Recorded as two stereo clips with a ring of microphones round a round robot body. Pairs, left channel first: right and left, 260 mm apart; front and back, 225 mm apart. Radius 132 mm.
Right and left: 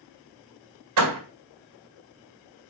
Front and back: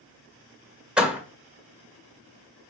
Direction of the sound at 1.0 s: 95° left.